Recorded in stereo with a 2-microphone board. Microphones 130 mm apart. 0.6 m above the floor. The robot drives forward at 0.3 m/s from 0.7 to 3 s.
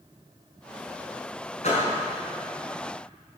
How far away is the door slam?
About 5 m.